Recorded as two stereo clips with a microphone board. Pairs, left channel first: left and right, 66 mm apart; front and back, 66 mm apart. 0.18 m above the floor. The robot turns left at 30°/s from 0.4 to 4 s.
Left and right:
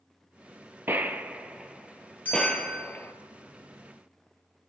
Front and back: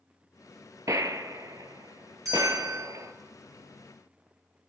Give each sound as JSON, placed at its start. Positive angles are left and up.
{"t": 0.9, "sound": "a gunshot", "azimuth_deg": -145, "distance_m": 0.7}
{"t": 2.2, "sound": "a bell", "azimuth_deg": 150, "distance_m": 5.5}